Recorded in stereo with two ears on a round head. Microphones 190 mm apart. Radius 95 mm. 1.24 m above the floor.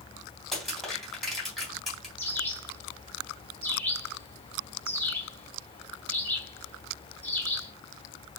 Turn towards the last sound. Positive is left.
turn(degrees=10)  # may be behind; listen again after turning